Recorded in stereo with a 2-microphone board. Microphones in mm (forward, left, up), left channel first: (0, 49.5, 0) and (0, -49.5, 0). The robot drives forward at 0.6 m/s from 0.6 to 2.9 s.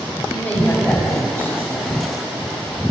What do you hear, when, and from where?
0.3 s a woman speaking: 20° left (ahead or behind), 8.5 m; by 1.9 s 25° left (ahead or behind), 8 m